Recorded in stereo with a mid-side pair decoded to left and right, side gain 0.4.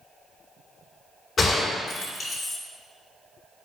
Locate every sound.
1.4 s a gunshot: 55° left, 3 m